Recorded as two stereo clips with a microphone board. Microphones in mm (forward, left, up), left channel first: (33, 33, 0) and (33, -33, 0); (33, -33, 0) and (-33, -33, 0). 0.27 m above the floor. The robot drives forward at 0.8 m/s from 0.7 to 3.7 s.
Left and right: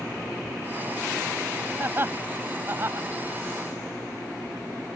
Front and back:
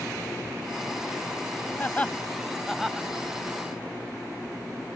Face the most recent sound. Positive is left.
turn(degrees=-125)